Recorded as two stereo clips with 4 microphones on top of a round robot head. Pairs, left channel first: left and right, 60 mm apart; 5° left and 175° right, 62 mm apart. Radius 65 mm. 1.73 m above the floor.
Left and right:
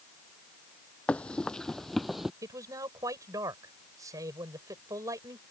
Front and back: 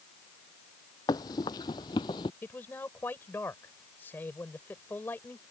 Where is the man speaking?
60° right.